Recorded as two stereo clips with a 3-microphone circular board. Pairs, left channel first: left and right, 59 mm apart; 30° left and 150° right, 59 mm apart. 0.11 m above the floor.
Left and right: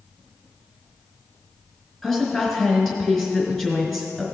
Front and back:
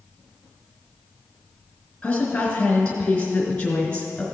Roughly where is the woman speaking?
Ahead.